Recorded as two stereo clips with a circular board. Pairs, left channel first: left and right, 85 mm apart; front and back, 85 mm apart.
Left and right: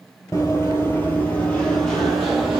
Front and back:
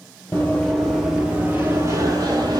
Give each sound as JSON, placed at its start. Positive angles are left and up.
{"t": 0.3, "sound": "running footsteps", "azimuth_deg": 55, "distance_m": 0.9}